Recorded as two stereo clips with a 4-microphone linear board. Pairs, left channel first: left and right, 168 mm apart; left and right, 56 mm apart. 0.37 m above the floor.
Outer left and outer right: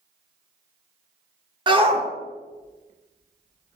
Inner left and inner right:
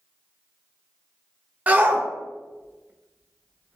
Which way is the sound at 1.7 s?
30° right (ahead or behind).